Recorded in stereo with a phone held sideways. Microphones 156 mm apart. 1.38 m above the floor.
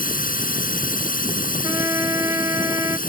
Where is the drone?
65° left (ahead or behind).